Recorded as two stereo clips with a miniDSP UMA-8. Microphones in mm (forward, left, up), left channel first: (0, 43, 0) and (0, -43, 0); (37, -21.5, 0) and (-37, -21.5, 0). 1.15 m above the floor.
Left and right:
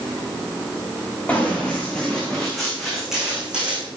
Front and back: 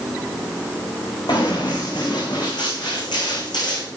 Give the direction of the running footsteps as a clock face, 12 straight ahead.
12 o'clock.